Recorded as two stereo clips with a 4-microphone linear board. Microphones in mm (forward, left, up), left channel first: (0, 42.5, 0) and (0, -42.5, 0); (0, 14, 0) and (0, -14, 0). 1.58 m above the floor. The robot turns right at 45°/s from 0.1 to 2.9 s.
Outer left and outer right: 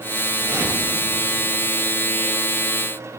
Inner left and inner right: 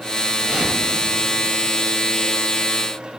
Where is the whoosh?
40° right (ahead or behind), 5 m; by 1.6 s 10° left (ahead or behind), 5 m.